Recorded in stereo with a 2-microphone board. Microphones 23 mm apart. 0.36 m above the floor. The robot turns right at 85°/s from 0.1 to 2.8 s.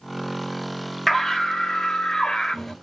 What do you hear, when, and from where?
1.1 s a scream: 25° left, 1.4 m; by 2.7 s 170° left, 1.4 m